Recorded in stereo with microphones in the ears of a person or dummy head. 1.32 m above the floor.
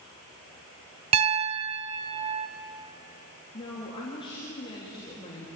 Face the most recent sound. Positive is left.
turn(degrees=25)  # may be behind; listen again after turning